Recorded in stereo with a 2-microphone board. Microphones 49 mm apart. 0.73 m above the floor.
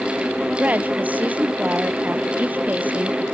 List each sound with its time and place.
0.6 s a woman speaking: 35° right (ahead or behind)